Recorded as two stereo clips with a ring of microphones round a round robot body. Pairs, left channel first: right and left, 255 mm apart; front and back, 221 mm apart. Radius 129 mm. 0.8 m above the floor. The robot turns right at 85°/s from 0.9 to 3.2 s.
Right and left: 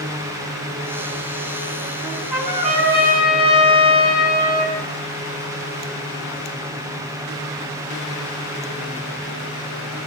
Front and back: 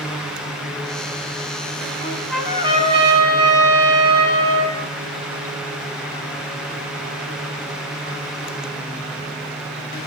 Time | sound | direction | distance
2.0 | a trumpet | 60° left | 6 m